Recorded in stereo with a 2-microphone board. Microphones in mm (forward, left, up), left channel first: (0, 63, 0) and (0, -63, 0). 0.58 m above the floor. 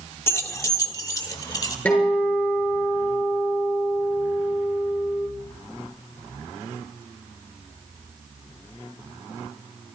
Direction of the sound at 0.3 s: 20° left (ahead or behind).